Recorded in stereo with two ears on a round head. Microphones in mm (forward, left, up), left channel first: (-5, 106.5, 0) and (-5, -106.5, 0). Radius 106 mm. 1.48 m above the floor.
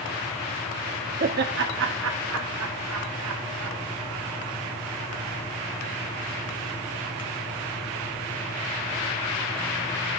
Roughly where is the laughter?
Right.